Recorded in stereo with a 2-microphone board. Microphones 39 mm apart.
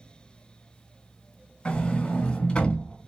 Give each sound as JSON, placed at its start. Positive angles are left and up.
{"t": 1.6, "sound": "a sliding door", "side_deg": 25, "distance_m": 1.3}